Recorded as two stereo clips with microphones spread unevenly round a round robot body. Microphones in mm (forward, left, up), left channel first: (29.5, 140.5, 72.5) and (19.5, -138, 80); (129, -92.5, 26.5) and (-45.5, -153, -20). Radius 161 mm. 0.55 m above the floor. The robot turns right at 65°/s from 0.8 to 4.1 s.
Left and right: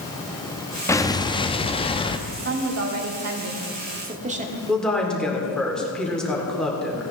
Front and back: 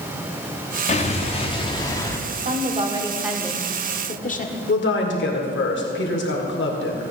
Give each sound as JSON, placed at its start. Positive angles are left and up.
{"t": 0.9, "sound": "an explosion", "azimuth_deg": 30, "distance_m": 0.7}
{"t": 2.3, "sound": "a woman speaking", "azimuth_deg": -150, "distance_m": 1.4}
{"t": 4.7, "sound": "a woman speaking", "azimuth_deg": 0, "distance_m": 2.0}